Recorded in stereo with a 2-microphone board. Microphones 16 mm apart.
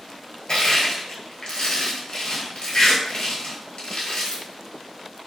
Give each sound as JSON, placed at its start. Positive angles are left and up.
{"t": 0.5, "sound": "crushing", "side_deg": 65, "distance_m": 0.9}